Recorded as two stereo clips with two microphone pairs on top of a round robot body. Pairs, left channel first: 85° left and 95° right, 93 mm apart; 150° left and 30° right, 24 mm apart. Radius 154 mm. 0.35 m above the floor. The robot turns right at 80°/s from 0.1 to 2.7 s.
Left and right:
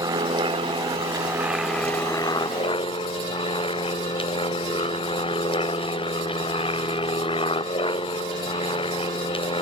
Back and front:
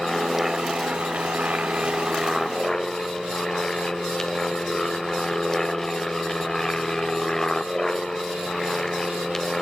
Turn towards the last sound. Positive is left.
turn(degrees=75)